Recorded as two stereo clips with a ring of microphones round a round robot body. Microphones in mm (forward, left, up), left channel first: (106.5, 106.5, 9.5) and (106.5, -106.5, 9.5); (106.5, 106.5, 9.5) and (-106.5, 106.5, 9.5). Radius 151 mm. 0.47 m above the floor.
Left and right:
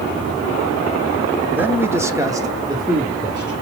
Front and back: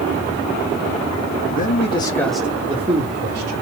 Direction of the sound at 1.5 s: 10° right.